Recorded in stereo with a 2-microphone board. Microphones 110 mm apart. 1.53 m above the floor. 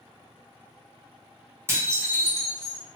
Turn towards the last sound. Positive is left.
turn(degrees=-25)  # may be behind; listen again after turning